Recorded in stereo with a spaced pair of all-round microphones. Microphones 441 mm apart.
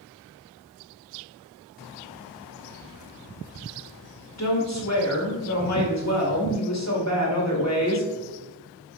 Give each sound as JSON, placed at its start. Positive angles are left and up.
{"t": 4.4, "sound": "a woman speaking", "side_deg": 35, "distance_m": 2.0}